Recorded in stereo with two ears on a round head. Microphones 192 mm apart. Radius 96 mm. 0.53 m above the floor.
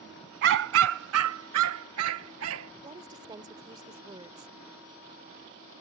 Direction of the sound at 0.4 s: 55° right (ahead or behind).